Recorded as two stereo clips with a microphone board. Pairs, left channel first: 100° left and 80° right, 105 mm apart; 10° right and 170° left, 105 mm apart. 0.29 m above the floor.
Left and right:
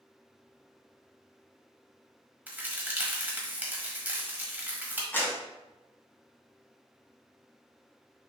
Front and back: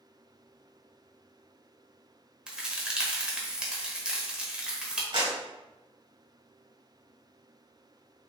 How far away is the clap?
About 1.6 m.